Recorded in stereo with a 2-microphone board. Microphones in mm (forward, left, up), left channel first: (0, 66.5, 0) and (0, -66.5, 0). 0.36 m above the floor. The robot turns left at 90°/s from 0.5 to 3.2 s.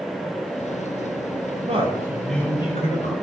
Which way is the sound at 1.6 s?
120° right.